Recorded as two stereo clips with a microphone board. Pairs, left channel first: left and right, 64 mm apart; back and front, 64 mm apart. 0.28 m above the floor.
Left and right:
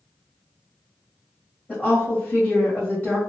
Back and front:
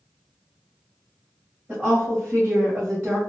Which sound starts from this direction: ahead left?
A woman speaking, at 1.7 s.